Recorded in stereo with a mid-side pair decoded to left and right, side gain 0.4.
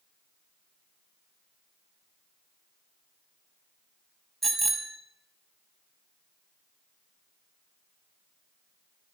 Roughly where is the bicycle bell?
Ahead right.